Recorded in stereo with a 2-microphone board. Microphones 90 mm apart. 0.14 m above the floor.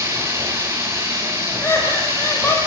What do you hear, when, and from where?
0.0 s running water: 30° right (ahead or behind), 3.5 m
1.6 s laughter: 30° left (ahead or behind), 5.5 m